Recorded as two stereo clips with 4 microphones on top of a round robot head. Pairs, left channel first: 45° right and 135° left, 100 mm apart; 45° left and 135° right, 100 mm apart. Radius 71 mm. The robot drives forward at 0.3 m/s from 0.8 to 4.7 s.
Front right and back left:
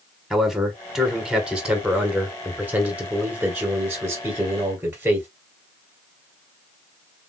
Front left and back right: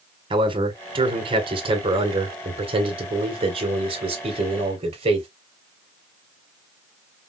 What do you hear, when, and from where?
0.3 s a man speaking: 135° right, 1.6 m; by 5.3 s 155° right, 2.5 m